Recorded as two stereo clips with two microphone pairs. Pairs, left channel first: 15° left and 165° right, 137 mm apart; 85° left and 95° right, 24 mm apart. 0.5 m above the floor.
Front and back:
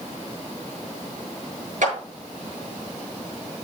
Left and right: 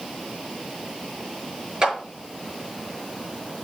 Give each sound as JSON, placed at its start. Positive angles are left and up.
{"t": 1.8, "sound": "a clap", "azimuth_deg": -160, "distance_m": 6.5}